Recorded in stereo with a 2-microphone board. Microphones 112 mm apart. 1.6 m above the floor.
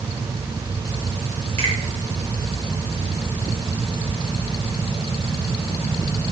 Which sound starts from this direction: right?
A finger snap, at 1.6 s.